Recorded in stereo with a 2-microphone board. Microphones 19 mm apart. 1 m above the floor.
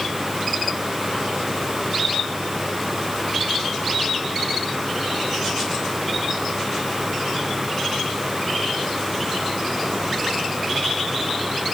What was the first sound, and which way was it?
Only background noise.